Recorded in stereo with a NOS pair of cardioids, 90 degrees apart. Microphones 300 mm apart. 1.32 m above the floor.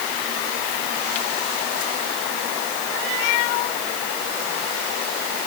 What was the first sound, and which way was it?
Only background noise.